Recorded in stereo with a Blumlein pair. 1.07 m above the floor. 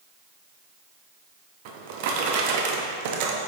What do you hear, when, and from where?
1.6 s a drawer: 50° right, 0.8 m